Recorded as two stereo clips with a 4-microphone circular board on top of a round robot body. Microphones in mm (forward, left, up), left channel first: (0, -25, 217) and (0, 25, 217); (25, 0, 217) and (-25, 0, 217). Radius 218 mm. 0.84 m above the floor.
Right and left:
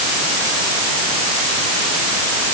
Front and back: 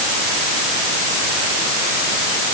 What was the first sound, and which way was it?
Only background noise.